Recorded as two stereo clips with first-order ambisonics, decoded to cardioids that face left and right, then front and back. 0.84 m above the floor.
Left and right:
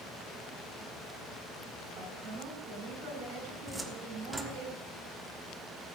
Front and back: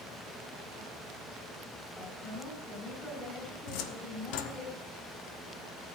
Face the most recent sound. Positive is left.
turn(degrees=-5)